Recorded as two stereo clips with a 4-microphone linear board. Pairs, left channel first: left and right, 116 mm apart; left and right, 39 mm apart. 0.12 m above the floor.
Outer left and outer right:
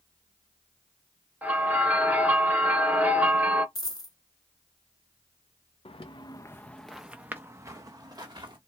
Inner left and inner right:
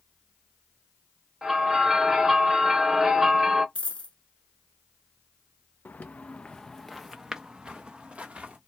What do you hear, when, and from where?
1.4 s a bell: 15° right (ahead or behind), 1.0 m
3.8 s a dropped coin: 35° left (ahead or behind), 0.7 m
5.8 s footsteps: 55° left (ahead or behind), 0.6 m; by 8.6 s 40° right (ahead or behind), 1.2 m